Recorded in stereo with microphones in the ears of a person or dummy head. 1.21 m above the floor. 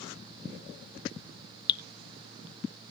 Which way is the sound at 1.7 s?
25° left (ahead or behind).